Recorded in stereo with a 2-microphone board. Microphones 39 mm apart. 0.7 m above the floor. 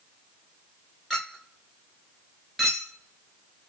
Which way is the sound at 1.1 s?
Centre (ahead or behind).